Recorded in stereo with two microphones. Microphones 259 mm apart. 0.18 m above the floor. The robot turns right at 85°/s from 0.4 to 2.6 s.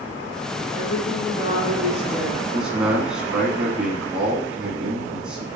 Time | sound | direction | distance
0.7 | a woman speaking | 55° left | 1.8 m
2.5 | a man speaking | centre (ahead or behind) | 1.3 m